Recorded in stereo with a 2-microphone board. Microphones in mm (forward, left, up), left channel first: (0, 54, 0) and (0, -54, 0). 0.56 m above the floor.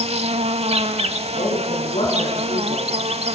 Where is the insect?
75° right (ahead or behind), 0.9 m.